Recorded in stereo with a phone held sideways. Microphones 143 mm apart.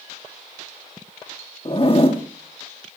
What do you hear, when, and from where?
1.6 s a zipper: 40° left (ahead or behind), 2 m